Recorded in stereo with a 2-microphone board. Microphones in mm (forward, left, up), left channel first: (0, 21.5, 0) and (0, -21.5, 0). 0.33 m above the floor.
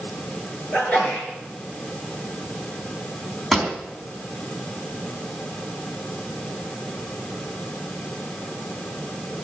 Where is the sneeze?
30° left (ahead or behind), 6.5 m.